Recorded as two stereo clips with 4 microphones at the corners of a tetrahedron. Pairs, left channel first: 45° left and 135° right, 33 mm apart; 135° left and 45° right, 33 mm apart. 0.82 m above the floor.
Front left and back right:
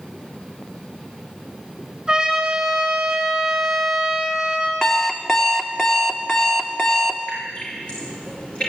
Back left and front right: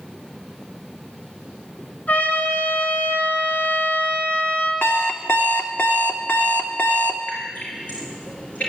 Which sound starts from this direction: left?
Dripping, at 7.3 s.